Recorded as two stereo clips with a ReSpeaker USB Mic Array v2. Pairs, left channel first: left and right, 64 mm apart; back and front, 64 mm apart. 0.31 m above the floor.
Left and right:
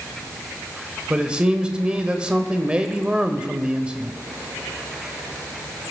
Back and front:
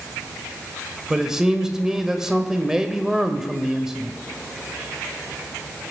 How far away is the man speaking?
About 1.0 m.